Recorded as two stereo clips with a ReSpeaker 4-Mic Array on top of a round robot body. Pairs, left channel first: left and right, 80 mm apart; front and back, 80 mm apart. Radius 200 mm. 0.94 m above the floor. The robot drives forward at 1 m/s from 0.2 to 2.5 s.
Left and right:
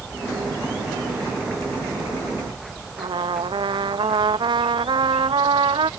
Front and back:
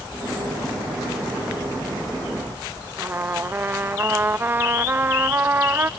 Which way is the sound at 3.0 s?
115° right.